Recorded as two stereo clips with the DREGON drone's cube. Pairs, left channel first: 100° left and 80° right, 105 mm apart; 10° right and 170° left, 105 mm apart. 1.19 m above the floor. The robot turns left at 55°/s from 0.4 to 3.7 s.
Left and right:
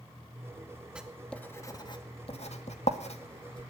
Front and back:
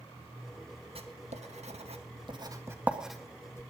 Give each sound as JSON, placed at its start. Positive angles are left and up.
{"t": 0.9, "sound": "writing", "azimuth_deg": -160, "distance_m": 1.9}